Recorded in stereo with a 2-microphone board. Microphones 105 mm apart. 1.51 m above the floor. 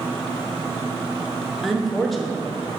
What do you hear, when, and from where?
1.6 s a woman speaking: centre (ahead or behind), 0.8 m